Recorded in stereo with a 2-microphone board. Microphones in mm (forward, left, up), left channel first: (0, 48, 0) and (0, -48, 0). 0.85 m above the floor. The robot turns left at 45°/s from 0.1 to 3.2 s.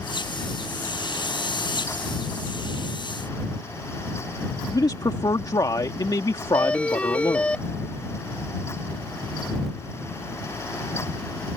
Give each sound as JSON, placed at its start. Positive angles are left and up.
{"t": 4.7, "sound": "a man speaking", "side_deg": 40}
{"t": 6.5, "sound": "a doorbell", "side_deg": 15}